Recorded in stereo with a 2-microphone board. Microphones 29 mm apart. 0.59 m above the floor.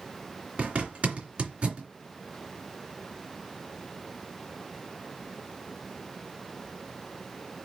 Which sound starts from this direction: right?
A zipper, at 0.6 s.